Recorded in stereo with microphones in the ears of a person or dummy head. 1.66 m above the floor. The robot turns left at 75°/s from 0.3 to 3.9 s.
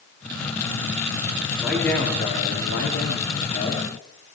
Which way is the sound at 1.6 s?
170° right.